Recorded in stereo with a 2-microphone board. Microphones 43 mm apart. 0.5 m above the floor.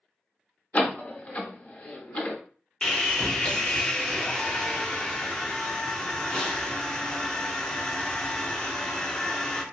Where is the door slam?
35° left (ahead or behind), 0.6 m.